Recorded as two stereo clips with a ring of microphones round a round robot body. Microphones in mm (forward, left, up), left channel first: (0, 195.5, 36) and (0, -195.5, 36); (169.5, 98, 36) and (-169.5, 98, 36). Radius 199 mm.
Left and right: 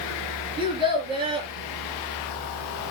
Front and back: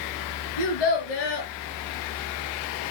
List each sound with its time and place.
0.6 s a child speaking: 10° right, 4 m